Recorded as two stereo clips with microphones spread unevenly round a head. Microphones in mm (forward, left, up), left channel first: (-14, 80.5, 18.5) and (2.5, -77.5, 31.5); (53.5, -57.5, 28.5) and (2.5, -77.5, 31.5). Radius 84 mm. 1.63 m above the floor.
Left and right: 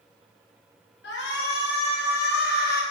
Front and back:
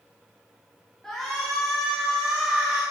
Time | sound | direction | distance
1.0 | a shout | 110° left | 4.5 m